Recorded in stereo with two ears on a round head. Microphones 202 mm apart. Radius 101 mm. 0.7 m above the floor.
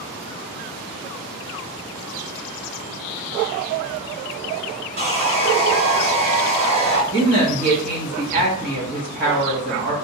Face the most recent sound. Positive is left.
turn(degrees=-40)  # may be behind; listen again after turning